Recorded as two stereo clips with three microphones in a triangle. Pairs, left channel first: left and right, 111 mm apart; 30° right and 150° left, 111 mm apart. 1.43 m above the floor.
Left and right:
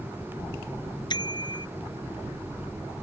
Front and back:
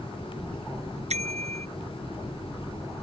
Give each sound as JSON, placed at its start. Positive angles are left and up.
{"t": 1.1, "sound": "a bicycle bell", "azimuth_deg": 140}